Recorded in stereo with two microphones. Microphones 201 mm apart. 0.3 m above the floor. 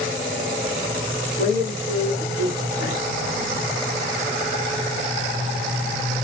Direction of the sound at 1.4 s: 55° left (ahead or behind).